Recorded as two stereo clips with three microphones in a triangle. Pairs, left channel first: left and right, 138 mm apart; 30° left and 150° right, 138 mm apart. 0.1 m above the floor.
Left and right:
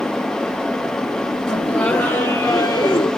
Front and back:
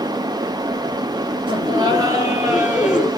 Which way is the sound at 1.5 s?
175° left.